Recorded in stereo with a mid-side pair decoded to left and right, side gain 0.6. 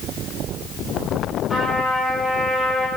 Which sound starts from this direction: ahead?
A trumpet, at 1.5 s.